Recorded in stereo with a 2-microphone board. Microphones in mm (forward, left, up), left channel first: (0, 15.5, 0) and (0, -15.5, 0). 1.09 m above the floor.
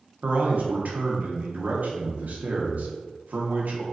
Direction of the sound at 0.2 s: 70° right (ahead or behind).